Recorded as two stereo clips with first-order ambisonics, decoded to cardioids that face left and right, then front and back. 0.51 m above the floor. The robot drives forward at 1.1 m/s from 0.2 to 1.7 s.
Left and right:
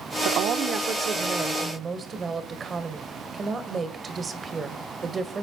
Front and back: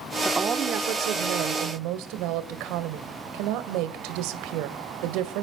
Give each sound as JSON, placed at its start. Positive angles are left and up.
{"t": 0.2, "sound": "a woman speaking", "azimuth_deg": -95, "distance_m": 0.8}